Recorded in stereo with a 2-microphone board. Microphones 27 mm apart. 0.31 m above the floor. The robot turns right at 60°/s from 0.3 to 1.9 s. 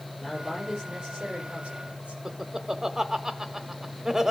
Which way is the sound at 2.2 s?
20° right (ahead or behind).